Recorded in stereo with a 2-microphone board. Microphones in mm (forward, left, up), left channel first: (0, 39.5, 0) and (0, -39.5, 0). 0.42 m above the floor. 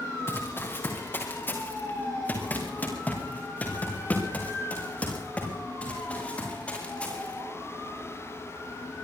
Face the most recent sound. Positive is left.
turn(degrees=15)  # may be behind; listen again after turning